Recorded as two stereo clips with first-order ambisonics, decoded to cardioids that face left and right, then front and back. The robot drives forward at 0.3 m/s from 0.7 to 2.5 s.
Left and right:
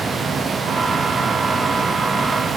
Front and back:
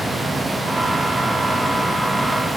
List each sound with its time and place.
Only background noise.